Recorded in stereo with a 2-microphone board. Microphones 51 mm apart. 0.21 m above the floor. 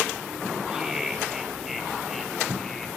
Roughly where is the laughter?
Centre.